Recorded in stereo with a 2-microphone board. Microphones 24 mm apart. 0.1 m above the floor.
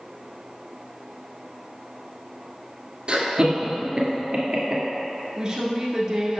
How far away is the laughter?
About 1.4 m.